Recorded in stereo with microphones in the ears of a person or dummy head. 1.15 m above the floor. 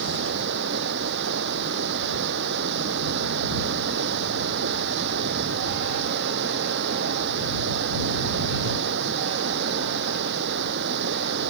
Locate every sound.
0.0 s running water: 60° right (ahead or behind)